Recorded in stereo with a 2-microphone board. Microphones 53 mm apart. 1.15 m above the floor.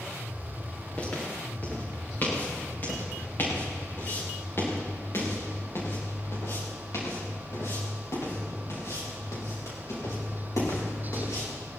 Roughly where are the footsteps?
Left.